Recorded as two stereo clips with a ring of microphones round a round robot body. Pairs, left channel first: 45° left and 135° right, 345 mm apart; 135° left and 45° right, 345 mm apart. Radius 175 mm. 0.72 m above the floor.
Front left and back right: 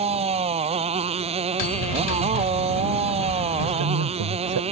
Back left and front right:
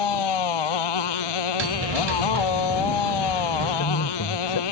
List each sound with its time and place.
0.0 s a motorcycle: 150° left
1.6 s a bell: 10° left
3.6 s a man speaking: 175° right